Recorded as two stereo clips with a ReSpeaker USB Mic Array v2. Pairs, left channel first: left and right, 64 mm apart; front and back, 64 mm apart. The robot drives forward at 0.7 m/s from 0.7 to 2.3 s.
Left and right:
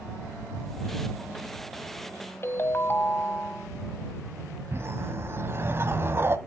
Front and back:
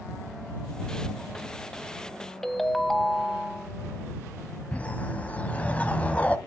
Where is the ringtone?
80° left, 1.0 m.